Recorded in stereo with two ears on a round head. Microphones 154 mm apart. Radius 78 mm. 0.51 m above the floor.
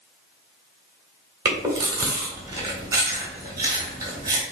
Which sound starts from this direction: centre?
Chewing, at 1.4 s.